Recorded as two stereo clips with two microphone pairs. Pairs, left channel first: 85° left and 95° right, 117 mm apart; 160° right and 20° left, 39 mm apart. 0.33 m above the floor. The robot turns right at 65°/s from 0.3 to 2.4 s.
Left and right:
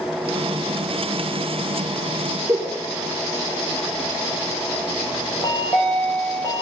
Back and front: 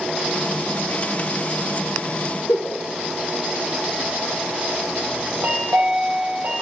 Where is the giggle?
160° right, 1.4 m.